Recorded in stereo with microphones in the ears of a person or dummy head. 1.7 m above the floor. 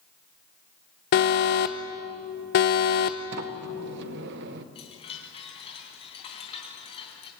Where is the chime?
30° left (ahead or behind), 3 m.